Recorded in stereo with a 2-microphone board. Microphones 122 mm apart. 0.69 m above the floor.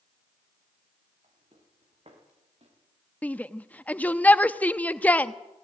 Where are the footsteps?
60° right (ahead or behind), 8 m; by 2.8 s 55° right (ahead or behind), 6.5 m.